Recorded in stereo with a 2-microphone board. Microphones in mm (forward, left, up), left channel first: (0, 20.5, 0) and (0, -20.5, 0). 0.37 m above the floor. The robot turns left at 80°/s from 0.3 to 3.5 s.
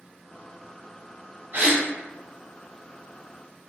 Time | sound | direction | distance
1.5 | a gasp | 55° right (ahead or behind) | 0.9 m